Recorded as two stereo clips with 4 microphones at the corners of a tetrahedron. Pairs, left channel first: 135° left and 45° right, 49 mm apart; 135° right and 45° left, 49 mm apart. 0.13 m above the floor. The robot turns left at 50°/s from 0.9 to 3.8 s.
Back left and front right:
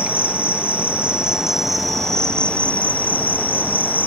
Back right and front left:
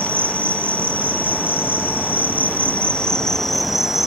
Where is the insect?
90° right, 0.9 m; by 4.1 s 125° left, 0.9 m.